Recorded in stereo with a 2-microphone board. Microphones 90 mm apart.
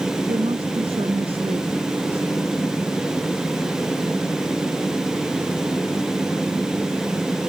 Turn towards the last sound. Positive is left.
turn(degrees=-80)